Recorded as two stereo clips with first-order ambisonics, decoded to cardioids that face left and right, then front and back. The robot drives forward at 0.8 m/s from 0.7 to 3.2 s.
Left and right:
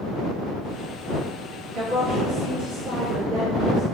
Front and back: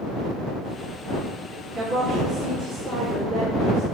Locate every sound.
1.7 s a woman speaking: 135° right, 2 m; by 3.8 s 150° right, 3 m